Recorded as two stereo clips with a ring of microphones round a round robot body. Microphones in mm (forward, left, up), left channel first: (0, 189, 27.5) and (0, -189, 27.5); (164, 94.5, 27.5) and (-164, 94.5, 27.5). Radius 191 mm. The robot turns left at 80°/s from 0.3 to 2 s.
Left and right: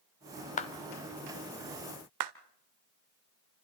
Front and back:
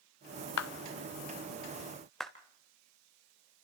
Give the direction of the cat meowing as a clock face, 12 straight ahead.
No cat meowing in this recording.